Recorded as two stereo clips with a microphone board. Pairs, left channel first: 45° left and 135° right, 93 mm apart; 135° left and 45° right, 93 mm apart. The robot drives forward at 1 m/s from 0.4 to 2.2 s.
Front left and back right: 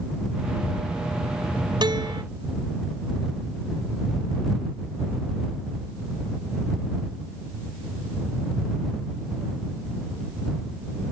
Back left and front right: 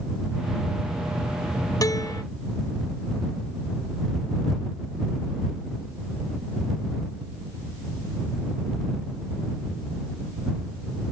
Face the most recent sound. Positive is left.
turn(degrees=-175)